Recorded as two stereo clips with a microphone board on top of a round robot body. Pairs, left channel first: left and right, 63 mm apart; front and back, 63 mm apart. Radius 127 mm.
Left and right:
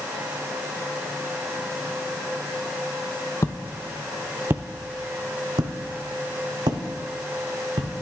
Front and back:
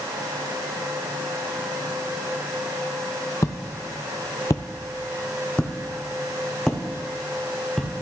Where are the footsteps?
40° left, 0.6 m; by 8.0 s 90° right, 2.0 m.